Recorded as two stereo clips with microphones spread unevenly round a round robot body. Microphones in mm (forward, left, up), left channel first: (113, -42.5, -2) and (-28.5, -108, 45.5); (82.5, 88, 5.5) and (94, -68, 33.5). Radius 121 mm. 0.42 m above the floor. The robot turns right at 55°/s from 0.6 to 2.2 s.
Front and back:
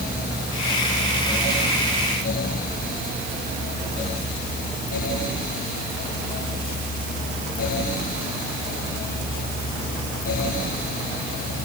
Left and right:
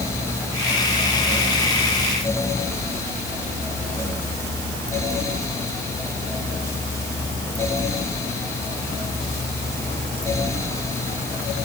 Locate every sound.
Only background noise.